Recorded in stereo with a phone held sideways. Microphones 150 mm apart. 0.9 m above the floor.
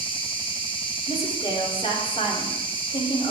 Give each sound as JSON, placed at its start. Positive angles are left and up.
{"t": 0.0, "sound": "an insect", "side_deg": 35, "distance_m": 1.5}
{"t": 1.1, "sound": "a woman speaking", "side_deg": 40, "distance_m": 3.0}